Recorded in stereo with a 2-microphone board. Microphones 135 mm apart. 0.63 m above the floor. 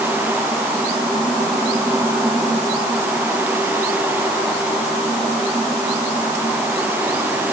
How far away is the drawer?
No drawer in this recording.